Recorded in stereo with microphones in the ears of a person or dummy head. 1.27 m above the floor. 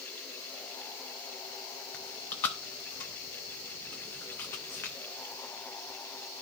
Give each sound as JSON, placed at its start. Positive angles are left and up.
{"t": 1.9, "sound": "chewing", "side_deg": 15, "distance_m": 0.6}